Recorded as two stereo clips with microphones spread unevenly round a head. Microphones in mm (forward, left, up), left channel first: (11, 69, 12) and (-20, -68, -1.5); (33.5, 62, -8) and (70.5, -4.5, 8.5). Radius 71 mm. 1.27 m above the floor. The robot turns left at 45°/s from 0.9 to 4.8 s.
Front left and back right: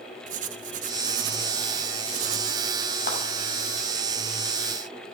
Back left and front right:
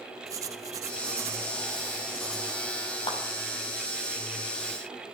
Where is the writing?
75° right, 0.9 m; by 2.8 s 165° right, 0.9 m.